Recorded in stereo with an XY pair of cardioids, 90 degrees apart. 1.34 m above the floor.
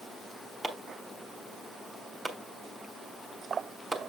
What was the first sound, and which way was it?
Chopping, 35° right.